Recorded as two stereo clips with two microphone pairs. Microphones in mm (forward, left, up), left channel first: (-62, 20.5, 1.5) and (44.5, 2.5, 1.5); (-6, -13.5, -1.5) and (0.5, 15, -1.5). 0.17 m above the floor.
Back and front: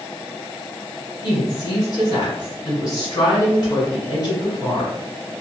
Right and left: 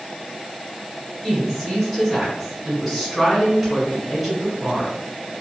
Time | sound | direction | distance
1.2 | a woman speaking | 170° left | 1.5 m